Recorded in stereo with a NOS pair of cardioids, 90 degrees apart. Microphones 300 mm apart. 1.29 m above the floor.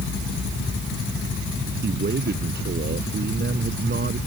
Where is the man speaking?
35° right.